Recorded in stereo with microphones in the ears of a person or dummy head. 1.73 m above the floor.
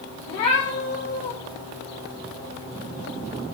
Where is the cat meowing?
30° left (ahead or behind), 1.7 m.